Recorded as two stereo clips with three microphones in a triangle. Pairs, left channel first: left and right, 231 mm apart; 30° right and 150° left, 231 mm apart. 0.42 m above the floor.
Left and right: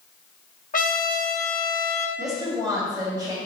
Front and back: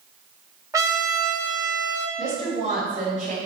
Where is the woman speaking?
160° right, 2.5 m.